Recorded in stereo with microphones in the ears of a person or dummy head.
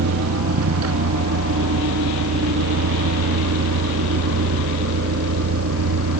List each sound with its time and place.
0.0 s a vehicle: 80° right